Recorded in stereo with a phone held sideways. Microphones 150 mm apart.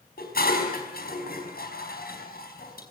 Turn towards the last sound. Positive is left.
turn(degrees=75)  # may be behind; listen again after turning